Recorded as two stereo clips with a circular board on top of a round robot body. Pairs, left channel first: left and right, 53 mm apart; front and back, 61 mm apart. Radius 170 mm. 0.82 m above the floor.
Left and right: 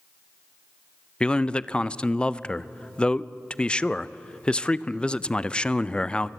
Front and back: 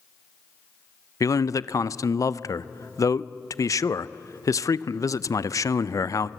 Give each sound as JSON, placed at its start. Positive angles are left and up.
{"t": 1.2, "sound": "a man speaking", "azimuth_deg": 20, "distance_m": 0.7}